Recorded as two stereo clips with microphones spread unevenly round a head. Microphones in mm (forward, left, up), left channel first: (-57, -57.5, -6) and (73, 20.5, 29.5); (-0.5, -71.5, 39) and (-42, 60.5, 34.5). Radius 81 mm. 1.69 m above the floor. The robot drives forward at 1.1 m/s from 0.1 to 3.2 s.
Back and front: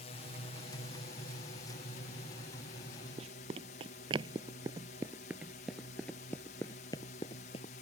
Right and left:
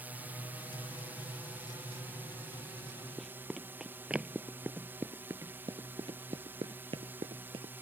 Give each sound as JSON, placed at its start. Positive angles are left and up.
{"t": 0.0, "sound": "a drone", "azimuth_deg": 180}
{"t": 3.2, "sound": "running footsteps", "azimuth_deg": 15}